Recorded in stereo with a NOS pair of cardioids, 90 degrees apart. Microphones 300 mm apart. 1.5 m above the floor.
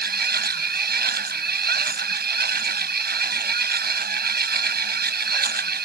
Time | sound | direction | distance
0.0 | a machine running | 35° right | ?